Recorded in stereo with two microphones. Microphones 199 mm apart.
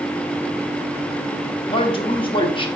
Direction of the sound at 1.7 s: 25° left (ahead or behind).